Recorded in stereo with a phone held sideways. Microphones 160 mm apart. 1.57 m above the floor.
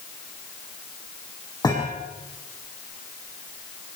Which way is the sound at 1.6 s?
25° left (ahead or behind).